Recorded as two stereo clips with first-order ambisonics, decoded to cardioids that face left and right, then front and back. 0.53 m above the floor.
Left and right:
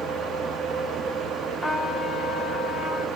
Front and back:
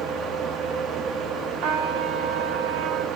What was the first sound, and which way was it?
A trumpet, 175° left.